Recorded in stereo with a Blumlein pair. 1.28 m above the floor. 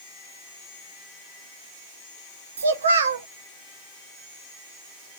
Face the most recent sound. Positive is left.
turn(degrees=-65)